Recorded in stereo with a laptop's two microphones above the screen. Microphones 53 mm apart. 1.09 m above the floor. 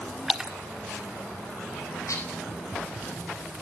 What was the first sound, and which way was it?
A splash, 10° right (ahead or behind).